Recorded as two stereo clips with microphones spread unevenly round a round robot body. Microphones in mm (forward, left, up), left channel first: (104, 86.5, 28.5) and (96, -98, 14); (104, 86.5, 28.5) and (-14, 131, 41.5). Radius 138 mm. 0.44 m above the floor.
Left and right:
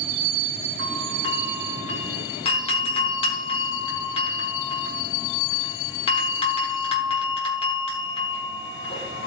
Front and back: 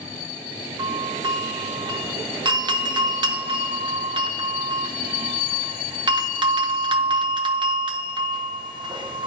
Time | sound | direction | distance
0.8 | a doorbell | 130° left | 1.3 m